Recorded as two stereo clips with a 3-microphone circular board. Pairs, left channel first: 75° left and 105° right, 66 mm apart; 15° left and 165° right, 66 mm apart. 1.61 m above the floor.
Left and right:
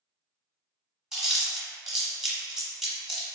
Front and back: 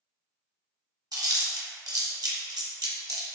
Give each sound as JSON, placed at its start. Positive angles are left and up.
{"t": 1.1, "sound": "chewing", "azimuth_deg": 170, "distance_m": 1.0}